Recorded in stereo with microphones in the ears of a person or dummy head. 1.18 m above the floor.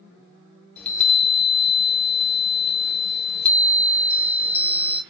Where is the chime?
10° left (ahead or behind), 1.0 m.